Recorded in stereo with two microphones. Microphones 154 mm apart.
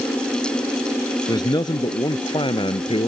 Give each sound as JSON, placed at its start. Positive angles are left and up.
{"t": 1.3, "sound": "a man speaking", "side_deg": 25}